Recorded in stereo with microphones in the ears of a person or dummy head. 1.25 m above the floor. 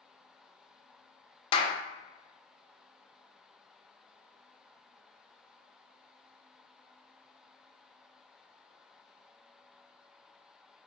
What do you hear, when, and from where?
1.5 s a clap: 30° left (ahead or behind), 0.6 m